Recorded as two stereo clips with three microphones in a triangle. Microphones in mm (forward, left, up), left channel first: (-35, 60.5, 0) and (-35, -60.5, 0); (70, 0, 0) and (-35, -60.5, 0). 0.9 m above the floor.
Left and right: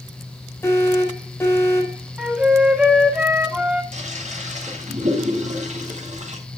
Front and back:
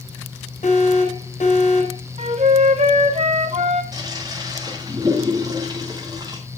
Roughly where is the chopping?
No chopping in this recording.